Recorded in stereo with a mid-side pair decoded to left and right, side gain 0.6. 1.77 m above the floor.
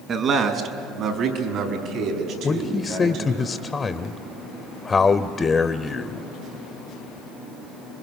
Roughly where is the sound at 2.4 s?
Ahead left.